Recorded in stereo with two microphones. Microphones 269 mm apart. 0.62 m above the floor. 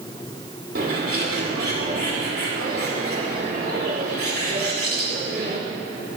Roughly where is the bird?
Right.